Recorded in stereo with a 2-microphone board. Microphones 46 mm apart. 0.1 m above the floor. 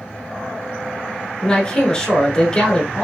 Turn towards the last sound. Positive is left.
turn(degrees=20)  # may be behind; listen again after turning